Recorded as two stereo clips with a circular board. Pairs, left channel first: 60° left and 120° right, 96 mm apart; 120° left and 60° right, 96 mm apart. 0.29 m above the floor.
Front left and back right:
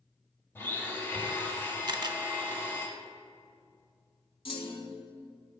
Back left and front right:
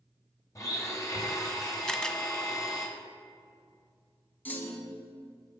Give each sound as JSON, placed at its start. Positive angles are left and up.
{"t": 0.6, "sound": "a blender", "azimuth_deg": 105, "distance_m": 1.2}
{"t": 1.9, "sound": "a camera shutter", "azimuth_deg": -160, "distance_m": 0.6}
{"t": 4.5, "sound": "a clunk", "azimuth_deg": 50, "distance_m": 0.9}